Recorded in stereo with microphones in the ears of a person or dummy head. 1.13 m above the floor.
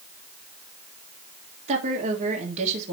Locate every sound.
1.7 s a woman speaking: 35° right (ahead or behind), 1.9 m